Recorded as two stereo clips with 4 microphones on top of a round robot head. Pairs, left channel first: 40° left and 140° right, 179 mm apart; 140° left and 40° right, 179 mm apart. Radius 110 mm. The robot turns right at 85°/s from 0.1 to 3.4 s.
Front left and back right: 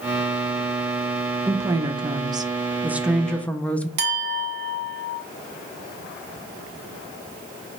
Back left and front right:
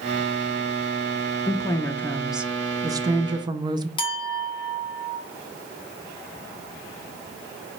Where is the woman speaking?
165° left, 0.5 m; by 3.9 s 30° right, 0.5 m.